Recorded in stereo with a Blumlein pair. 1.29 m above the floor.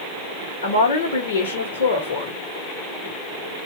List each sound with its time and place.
0.6 s a woman speaking: 60° left, 1.7 m